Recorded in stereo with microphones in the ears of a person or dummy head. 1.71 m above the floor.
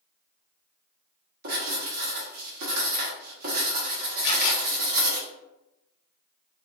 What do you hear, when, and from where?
1.4 s writing: 50° right (ahead or behind), 1.6 m
4.2 s a camera shutter: 70° left (ahead or behind), 1.5 m